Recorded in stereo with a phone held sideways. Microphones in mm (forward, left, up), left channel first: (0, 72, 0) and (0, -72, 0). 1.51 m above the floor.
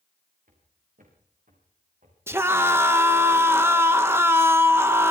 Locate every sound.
0.5 s footsteps: 70° right (ahead or behind), 7.5 m; by 2.2 s 60° right (ahead or behind), 7 m
2.3 s a scream: 15° right (ahead or behind), 1.7 m